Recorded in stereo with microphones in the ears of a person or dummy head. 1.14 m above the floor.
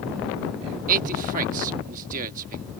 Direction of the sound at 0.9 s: 45° right (ahead or behind).